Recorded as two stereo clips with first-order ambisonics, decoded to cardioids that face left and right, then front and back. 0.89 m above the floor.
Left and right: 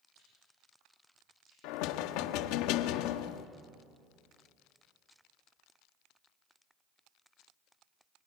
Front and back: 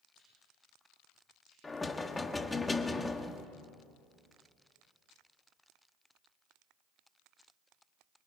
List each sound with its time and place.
0.1 s chewing: 60° right, 10 m
1.6 s knocking: 80° left, 1.2 m